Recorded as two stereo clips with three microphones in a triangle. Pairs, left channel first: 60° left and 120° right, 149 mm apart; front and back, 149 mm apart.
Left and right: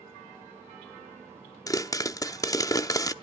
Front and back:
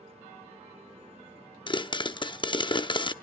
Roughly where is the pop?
Ahead.